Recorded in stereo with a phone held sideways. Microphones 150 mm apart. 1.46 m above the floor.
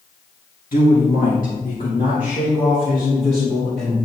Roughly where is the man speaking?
Left.